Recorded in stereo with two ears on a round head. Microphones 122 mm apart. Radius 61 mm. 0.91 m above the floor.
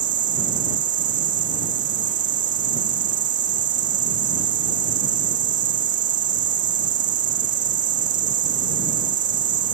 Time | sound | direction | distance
0.0 | an insect | 65° right (ahead or behind) | ?